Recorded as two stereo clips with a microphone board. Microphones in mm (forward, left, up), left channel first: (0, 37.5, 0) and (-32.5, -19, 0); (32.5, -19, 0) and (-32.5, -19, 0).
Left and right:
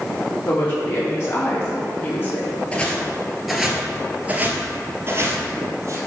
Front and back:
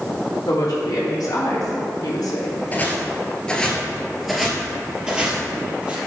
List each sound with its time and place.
0.5 s a woman speaking: 15° left, 3 m; by 2.5 s straight ahead, 2 m
2.7 s footsteps: 15° left, 1.5 m; by 6.0 s 120° right, 2 m